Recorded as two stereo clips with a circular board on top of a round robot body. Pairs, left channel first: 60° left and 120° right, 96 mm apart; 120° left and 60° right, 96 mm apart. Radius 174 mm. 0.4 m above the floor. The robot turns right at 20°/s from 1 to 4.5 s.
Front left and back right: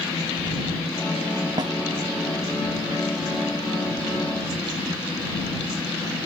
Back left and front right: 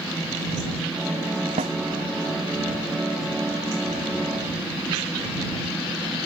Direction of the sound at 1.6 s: 75° right.